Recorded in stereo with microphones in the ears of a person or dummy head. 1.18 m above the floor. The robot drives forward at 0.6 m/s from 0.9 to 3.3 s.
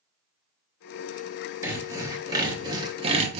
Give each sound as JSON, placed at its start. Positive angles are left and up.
{"t": 1.6, "sound": "sawing", "side_deg": -15, "distance_m": 1.6}